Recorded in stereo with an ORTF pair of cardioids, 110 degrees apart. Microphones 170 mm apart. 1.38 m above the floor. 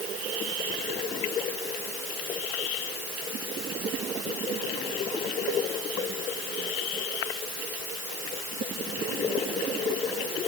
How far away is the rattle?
I don't hear a rattle.